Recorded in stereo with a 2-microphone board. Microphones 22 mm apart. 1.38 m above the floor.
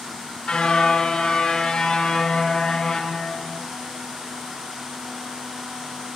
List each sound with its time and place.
0.5 s a car horn: 35° left (ahead or behind), 6.5 m; by 3.6 s 20° left (ahead or behind), 7 m